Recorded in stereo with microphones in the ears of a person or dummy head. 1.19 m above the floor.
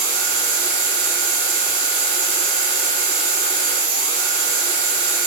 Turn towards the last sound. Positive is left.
turn(degrees=-60)  # may be behind; listen again after turning